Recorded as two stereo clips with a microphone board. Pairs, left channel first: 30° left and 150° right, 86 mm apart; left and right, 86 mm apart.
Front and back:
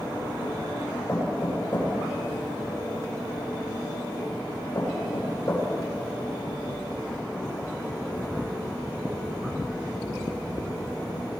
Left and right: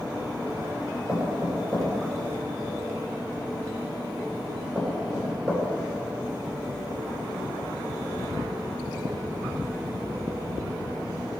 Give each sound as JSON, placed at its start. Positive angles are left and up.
{"t": 1.1, "sound": "knocking", "azimuth_deg": -20, "distance_m": 5.0}